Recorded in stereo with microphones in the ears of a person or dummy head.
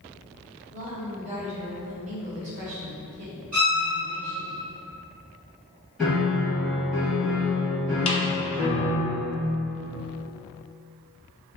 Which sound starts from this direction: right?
A woman speaking, at 0.7 s.